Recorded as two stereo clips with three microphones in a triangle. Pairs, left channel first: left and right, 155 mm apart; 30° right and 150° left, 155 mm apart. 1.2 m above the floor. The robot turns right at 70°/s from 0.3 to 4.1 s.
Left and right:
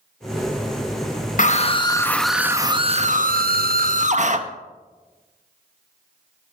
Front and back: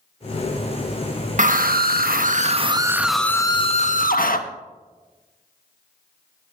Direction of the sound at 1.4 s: 120° left.